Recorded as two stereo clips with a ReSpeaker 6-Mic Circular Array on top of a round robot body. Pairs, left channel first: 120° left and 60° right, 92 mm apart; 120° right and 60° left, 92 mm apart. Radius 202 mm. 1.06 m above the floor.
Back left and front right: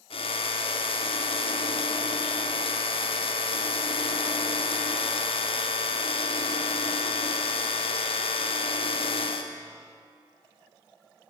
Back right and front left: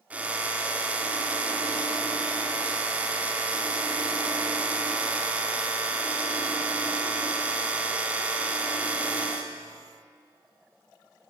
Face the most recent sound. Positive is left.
turn(degrees=135)